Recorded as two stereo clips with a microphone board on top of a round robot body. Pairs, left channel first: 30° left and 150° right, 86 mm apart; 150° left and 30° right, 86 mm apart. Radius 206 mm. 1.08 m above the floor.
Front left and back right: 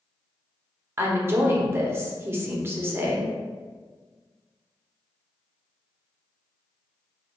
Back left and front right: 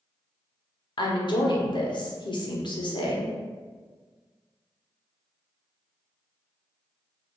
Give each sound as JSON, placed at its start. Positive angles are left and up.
{"t": 1.0, "sound": "a woman speaking", "azimuth_deg": 150, "distance_m": 0.9}